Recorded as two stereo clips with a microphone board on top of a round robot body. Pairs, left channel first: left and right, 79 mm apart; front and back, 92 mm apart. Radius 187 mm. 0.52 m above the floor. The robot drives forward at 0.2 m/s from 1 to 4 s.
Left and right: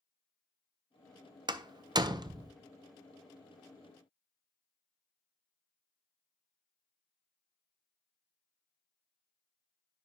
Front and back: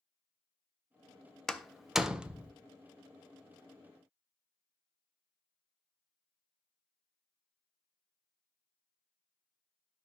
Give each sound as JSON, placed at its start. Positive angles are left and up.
{"t": 1.5, "sound": "a door slam", "azimuth_deg": -85, "distance_m": 0.6}